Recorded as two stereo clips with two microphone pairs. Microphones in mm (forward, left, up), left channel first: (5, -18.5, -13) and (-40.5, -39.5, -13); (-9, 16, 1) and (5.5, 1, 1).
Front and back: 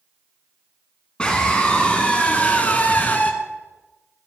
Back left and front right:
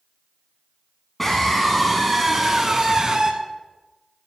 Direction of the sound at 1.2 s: 75° left.